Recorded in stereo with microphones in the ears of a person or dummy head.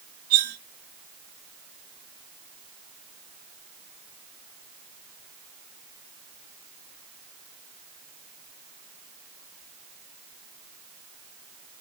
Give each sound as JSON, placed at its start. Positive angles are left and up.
{"t": 0.3, "sound": "cutlery clinking", "side_deg": -40, "distance_m": 1.3}